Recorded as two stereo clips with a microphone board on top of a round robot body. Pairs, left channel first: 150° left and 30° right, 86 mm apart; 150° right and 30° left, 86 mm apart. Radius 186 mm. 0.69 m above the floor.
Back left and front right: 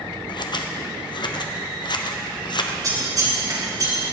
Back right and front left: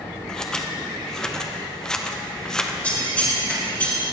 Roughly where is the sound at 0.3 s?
Behind left.